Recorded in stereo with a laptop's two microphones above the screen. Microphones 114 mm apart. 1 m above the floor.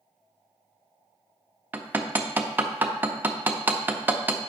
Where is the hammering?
15° right (ahead or behind), 0.5 m.